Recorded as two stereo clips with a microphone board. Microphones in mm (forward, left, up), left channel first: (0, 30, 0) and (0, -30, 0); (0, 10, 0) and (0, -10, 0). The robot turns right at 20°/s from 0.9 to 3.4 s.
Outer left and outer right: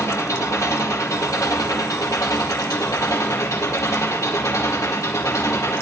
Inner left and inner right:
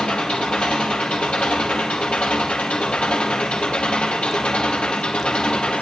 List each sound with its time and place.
0.0 s an engine running: 60° left, 4 m; by 5.8 s 110° left, 4 m